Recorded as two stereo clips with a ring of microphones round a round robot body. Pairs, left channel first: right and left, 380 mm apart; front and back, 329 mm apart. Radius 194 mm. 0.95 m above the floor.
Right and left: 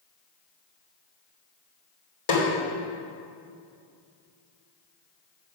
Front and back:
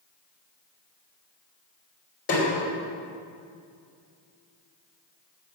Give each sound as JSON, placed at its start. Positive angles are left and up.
{"t": 2.3, "sound": "a snare drum", "azimuth_deg": -65, "distance_m": 3.0}